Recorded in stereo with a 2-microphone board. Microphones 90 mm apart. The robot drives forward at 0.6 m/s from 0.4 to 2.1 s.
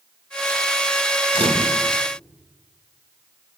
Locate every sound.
1.3 s a camera shutter: 85° right, 3 m; by 1.8 s 80° right, 3 m